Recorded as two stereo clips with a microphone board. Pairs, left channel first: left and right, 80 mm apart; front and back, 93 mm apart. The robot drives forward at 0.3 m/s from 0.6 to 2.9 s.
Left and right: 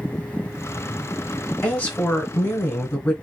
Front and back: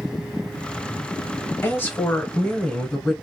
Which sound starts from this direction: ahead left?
A woman speaking, at 1.6 s.